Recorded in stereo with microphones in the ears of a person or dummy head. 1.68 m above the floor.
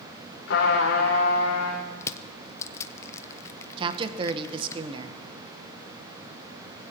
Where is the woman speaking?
35° right (ahead or behind), 1.2 m.